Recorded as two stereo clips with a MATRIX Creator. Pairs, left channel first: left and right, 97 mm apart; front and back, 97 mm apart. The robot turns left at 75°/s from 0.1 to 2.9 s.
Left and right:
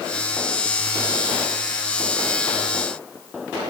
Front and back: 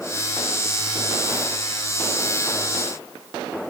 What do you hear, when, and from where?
Only background noise.